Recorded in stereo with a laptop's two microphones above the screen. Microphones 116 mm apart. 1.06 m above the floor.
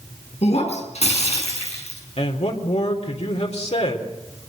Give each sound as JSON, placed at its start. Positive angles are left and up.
{"t": 0.4, "sound": "breaking glass", "side_deg": 70, "distance_m": 6.0}
{"t": 2.2, "sound": "a man speaking", "side_deg": 65, "distance_m": 3.5}